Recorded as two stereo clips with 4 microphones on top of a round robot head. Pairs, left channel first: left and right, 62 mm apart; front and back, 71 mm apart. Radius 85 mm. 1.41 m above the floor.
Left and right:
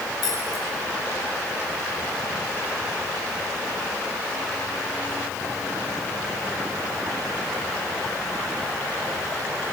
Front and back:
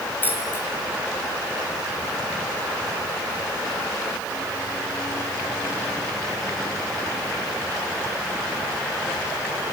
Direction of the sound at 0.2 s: 60° left.